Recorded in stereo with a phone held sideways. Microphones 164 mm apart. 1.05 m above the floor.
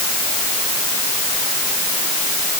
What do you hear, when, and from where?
Only background noise.